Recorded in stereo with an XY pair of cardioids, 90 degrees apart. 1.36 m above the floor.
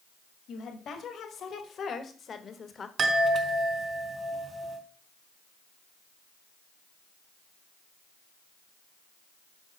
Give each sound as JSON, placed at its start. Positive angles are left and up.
{"t": 0.5, "sound": "a woman speaking", "azimuth_deg": 70, "distance_m": 2.5}
{"t": 3.0, "sound": "a chime", "azimuth_deg": -50, "distance_m": 3.5}